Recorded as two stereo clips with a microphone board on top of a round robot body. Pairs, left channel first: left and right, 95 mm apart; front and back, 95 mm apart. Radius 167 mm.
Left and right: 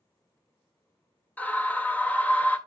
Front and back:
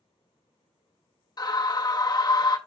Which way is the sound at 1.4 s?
20° left.